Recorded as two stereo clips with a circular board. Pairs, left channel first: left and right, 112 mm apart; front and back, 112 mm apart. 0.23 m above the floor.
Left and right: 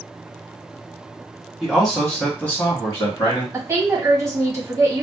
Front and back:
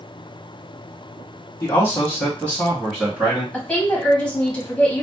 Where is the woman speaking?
70° right, 1.3 m.